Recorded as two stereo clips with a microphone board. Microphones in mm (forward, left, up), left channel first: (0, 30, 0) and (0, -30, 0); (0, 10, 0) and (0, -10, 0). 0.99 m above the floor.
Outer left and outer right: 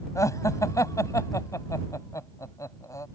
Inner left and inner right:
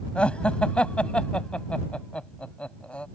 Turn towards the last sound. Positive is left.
turn(degrees=65)  # may be behind; listen again after turning